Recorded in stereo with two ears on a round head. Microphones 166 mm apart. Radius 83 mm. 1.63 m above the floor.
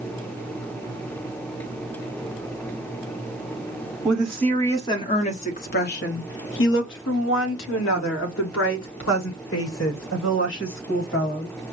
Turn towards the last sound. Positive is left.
turn(degrees=75)  # may be behind; listen again after turning